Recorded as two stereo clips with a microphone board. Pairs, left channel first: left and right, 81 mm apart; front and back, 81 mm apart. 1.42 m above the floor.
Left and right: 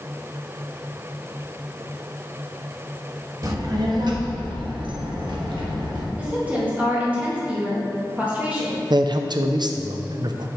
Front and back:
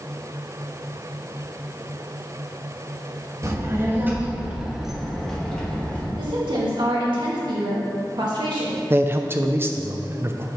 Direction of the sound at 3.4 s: 130° right.